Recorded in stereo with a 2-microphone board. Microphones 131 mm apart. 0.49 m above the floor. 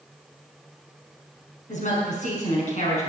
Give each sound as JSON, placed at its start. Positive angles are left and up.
{"t": 1.7, "sound": "a woman speaking", "side_deg": 65, "distance_m": 6.0}